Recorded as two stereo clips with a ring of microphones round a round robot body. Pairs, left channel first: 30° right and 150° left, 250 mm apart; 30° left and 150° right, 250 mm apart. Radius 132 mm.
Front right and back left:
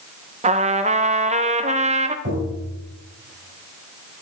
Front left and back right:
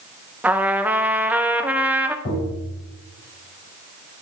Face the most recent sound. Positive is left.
turn(degrees=90)